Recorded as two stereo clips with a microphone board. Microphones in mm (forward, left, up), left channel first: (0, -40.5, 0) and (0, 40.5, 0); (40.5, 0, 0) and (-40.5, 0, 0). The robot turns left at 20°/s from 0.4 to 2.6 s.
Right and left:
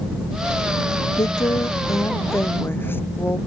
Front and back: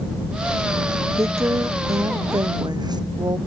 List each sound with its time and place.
1.2 s a woman speaking: 125° right; by 3.4 s 150° right